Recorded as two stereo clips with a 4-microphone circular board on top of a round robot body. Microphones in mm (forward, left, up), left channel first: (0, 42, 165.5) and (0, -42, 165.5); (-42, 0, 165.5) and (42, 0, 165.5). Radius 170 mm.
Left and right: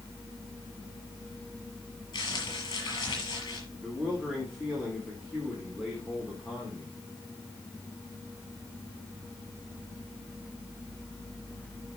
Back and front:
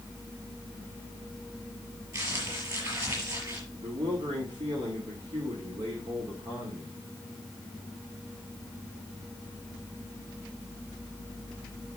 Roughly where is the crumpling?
Ahead left.